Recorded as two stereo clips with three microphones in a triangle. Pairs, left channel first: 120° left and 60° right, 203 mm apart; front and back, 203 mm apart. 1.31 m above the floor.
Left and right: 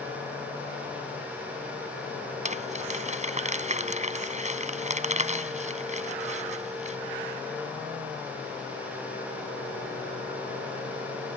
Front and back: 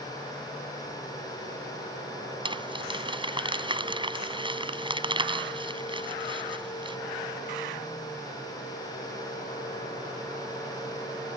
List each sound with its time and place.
2.5 s crumpling: 115° right